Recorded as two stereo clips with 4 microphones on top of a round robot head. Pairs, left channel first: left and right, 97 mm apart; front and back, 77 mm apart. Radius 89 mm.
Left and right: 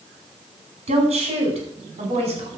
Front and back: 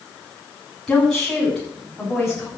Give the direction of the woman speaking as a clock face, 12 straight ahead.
3 o'clock.